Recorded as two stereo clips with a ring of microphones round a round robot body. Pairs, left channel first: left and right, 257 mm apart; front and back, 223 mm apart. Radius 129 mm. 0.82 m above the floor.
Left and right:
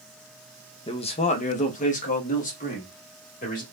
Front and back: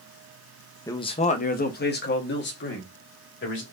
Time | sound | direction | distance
0.9 | a man speaking | 55° left | 0.5 m